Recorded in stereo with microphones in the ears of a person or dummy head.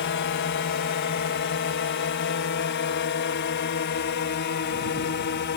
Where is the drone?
60° left (ahead or behind); by 5.6 s 55° left (ahead or behind).